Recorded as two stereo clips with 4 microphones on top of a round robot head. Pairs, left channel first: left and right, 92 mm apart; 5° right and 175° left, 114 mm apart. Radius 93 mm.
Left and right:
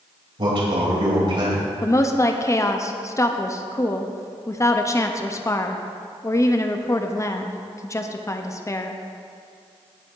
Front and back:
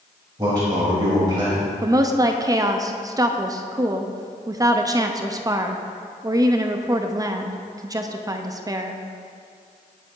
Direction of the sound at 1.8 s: 130° left.